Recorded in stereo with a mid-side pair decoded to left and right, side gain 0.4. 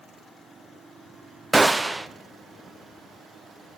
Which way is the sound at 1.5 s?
20° right.